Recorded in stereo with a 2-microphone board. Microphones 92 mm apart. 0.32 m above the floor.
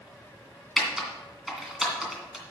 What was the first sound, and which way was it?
Typing on a keyboard, 5° right (ahead or behind).